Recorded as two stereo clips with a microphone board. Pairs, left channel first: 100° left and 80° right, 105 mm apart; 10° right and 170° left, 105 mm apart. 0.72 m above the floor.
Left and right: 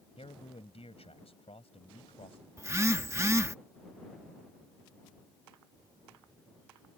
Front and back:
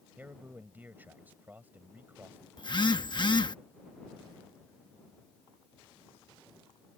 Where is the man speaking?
100° left.